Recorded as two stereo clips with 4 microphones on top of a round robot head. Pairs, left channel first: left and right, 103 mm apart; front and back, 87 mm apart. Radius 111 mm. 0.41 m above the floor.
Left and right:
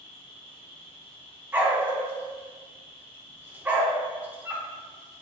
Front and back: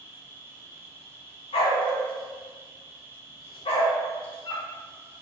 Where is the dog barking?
15° right, 0.9 m.